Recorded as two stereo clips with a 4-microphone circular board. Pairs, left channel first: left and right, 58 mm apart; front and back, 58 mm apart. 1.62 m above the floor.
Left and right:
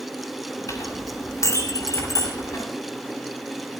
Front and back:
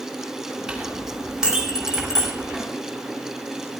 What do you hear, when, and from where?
0.7 s a clink: 105° left, 5.5 m